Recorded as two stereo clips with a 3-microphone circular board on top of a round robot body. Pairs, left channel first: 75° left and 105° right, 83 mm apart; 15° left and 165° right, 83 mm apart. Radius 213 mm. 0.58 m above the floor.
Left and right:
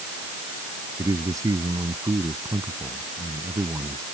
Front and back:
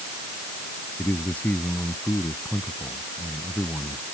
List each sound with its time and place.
1.0 s a man speaking: 55° right